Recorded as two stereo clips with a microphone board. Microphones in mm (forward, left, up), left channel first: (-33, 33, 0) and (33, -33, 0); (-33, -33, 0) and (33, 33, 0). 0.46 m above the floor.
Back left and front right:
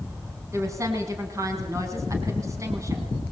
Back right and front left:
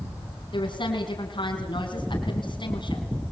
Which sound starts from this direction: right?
A woman speaking, at 0.5 s.